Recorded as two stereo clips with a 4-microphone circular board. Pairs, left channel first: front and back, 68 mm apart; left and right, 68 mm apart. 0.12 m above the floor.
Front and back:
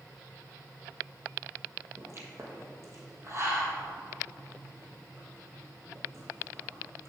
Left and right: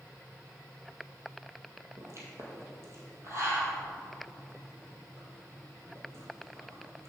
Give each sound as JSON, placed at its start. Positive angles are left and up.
{"t": 2.0, "sound": "a pop", "azimuth_deg": -135, "distance_m": 1.8}